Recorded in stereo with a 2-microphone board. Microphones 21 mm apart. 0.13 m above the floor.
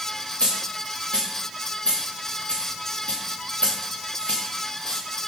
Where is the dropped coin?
85° left, 4 m.